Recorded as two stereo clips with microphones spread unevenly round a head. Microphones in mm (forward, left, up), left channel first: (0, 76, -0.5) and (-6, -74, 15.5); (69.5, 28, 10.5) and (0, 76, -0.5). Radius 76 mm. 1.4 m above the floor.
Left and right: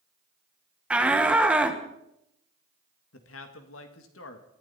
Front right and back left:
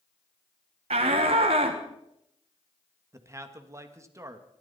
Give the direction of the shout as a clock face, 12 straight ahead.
6 o'clock.